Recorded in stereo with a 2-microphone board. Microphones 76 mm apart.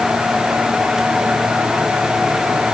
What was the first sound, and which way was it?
Only background noise.